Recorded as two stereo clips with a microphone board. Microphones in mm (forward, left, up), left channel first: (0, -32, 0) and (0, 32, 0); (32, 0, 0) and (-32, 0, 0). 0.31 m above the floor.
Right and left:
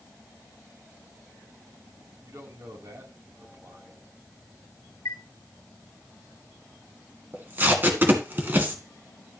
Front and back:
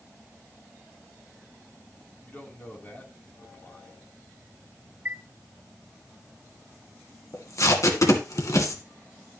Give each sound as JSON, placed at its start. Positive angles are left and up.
{"t": 2.2, "sound": "a man speaking", "azimuth_deg": 60, "distance_m": 3.0}
{"t": 5.0, "sound": "a chime", "azimuth_deg": -120, "distance_m": 1.1}
{"t": 7.3, "sound": "tape being pulled", "azimuth_deg": 30, "distance_m": 1.9}